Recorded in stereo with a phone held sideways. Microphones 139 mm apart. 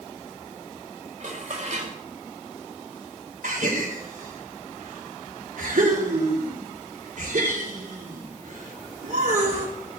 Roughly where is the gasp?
Right.